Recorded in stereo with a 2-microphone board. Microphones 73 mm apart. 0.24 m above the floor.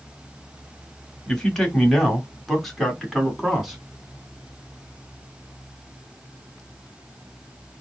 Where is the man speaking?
10° left (ahead or behind), 1.3 m; by 3.8 s 5° right (ahead or behind), 2 m.